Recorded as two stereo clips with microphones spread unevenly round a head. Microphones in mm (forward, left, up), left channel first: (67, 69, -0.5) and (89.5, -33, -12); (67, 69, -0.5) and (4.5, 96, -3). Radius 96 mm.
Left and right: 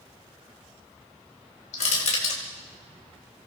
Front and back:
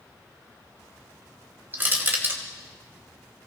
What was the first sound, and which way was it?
Crushing, 100° left.